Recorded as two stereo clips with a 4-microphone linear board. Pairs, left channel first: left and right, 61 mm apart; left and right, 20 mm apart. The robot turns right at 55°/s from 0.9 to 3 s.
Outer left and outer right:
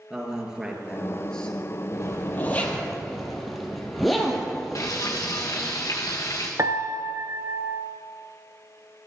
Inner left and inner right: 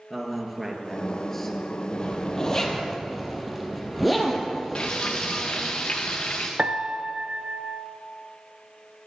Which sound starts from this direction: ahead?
A man speaking, at 0.1 s.